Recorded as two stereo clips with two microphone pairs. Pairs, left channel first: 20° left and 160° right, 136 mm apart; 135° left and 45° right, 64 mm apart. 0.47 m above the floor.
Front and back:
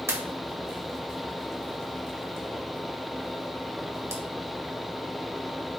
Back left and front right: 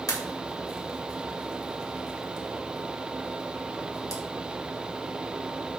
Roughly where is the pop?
Behind left.